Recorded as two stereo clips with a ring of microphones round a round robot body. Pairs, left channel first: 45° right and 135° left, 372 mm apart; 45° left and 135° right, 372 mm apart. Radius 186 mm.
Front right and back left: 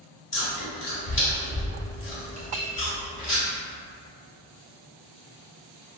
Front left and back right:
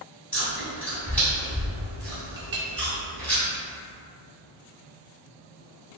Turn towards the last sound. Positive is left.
turn(degrees=-170)